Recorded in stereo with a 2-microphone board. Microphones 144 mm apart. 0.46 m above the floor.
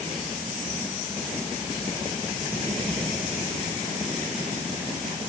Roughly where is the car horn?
No car horn in this recording.